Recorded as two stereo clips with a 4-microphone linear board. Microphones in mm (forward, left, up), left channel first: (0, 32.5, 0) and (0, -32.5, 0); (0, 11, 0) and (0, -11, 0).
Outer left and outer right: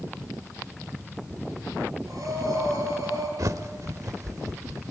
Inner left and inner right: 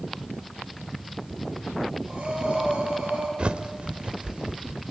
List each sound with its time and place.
2.1 s breathing: 65° right (ahead or behind), 7 m
3.4 s a bird: 60° right (ahead or behind), 1.0 m